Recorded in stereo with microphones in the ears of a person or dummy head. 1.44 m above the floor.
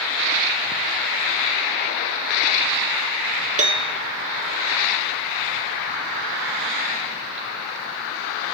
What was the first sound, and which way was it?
A piano, 35° right (ahead or behind).